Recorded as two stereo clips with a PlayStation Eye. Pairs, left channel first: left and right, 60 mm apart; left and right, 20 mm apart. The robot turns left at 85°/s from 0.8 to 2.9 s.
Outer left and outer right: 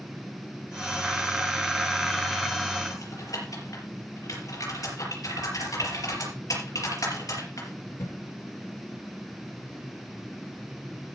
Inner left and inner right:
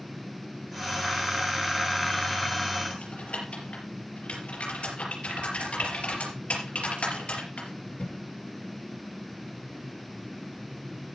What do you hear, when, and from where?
2.9 s typing on a keyboard: 70° left (ahead or behind), 5 m